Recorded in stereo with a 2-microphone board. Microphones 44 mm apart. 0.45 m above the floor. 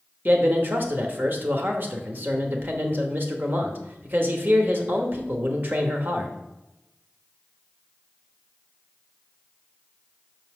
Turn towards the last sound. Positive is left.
turn(degrees=-50)  # may be behind; listen again after turning